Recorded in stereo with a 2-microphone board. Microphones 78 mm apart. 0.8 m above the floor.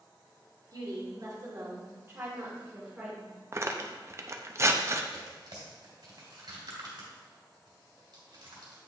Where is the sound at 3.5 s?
35° right (ahead or behind), 0.6 m.